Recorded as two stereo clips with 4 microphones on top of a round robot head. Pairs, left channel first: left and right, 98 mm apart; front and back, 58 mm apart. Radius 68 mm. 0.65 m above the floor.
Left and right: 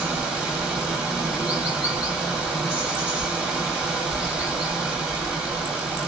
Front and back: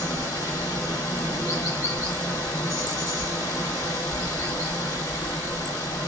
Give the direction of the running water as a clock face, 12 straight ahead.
12 o'clock.